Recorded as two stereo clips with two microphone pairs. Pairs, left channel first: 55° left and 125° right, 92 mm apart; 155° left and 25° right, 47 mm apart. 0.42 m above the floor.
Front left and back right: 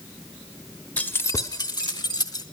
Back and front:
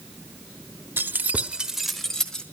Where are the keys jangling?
20° right, 1.1 m; by 2.4 s 85° left, 1.7 m.